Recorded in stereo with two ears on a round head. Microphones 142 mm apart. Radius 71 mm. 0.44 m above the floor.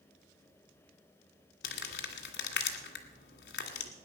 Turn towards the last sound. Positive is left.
turn(degrees=80)